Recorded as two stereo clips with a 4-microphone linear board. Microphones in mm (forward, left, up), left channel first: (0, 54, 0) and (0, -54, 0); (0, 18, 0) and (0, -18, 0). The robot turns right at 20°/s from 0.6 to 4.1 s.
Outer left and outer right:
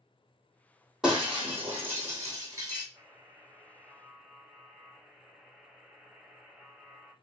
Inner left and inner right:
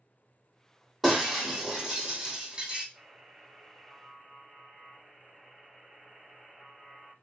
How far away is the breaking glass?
About 2 m.